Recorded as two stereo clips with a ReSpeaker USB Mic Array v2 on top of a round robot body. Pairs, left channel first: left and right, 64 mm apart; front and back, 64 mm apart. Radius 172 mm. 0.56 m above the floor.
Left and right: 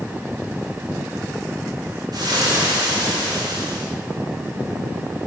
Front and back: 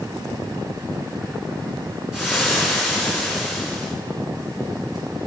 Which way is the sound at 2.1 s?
95° right.